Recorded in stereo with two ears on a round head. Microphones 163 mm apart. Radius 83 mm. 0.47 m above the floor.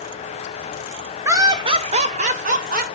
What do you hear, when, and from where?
1.2 s laughter: 15° right (ahead or behind), 1.6 m; by 2.9 s 55° right (ahead or behind), 3 m